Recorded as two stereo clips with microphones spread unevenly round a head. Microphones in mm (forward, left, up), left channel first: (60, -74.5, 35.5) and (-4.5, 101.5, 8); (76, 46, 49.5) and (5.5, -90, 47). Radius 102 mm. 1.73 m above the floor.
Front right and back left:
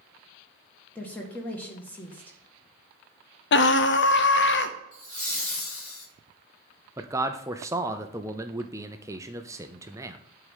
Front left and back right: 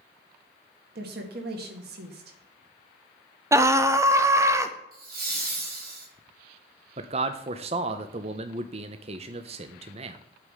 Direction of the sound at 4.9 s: 95° right.